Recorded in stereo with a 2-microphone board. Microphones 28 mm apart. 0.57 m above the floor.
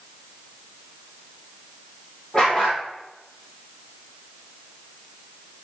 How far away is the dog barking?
About 4 m.